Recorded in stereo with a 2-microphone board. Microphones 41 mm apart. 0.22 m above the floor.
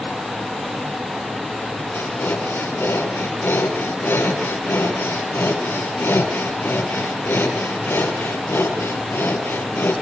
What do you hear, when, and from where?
1.9 s breathing: 70° left (ahead or behind), 5.5 m